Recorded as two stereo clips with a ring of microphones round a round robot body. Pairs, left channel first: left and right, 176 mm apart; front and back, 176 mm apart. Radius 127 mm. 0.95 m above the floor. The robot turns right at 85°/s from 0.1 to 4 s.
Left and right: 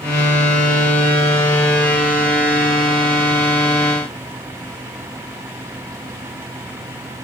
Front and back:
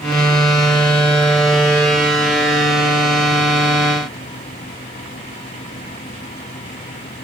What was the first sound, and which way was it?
Only background noise.